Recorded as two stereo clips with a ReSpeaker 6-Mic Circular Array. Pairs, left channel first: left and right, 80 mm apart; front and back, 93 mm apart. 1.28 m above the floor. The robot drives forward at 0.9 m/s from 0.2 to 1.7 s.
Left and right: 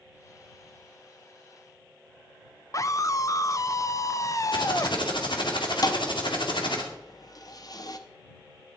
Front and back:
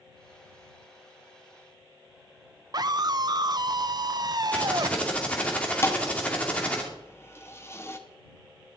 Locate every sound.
2.7 s a scream: 135° left, 0.8 m
4.5 s typing on a keyboard: 75° left, 2.5 m
5.8 s a thud: 60° left, 1.0 m